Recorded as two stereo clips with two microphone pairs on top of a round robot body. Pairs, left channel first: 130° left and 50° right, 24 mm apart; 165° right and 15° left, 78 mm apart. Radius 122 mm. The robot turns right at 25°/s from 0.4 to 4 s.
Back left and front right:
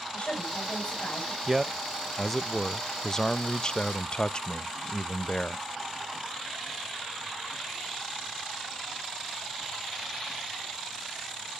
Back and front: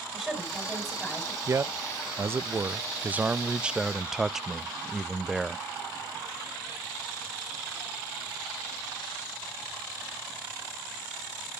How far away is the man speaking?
About 0.5 m.